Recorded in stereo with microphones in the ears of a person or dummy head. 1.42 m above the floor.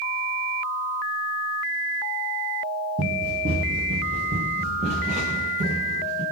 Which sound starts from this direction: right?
Running footsteps, at 3.0 s.